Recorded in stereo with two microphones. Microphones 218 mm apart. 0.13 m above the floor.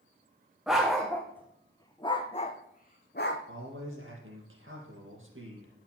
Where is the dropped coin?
No dropped coin in this recording.